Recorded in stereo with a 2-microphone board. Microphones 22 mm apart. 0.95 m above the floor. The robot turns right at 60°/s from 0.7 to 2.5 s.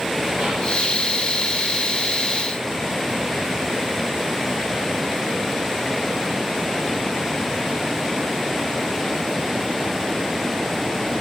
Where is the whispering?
70° right (ahead or behind), 0.8 m; by 0.8 s 75° right (ahead or behind), 0.8 m.